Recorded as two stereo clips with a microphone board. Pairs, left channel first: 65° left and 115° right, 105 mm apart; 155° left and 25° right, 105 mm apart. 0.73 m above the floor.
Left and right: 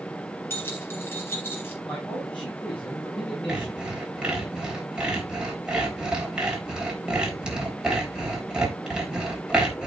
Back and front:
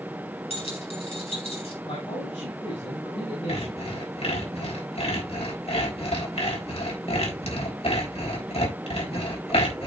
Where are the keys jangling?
135° left, 4.5 m.